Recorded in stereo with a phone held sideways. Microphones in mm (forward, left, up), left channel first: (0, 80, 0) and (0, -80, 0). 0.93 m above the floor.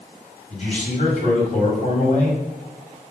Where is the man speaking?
45° left (ahead or behind), 2 m.